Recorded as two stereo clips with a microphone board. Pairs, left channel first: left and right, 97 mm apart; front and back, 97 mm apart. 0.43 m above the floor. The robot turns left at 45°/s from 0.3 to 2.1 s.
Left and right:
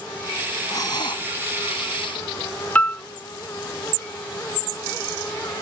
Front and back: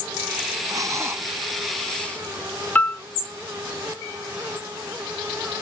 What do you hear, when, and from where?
0.7 s breathing: 140° left; by 2.2 s 75° left
2.8 s a piano: 45° left